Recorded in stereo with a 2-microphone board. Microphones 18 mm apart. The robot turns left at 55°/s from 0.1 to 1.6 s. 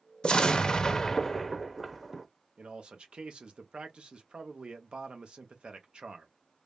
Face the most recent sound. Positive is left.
turn(degrees=-65)  # may be behind; listen again after turning